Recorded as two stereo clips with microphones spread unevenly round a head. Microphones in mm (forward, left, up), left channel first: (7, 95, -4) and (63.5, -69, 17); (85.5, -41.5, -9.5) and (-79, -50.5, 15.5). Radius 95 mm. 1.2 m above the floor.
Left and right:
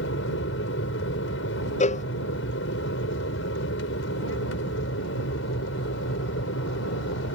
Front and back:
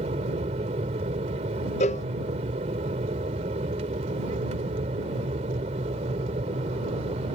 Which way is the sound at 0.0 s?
125° left.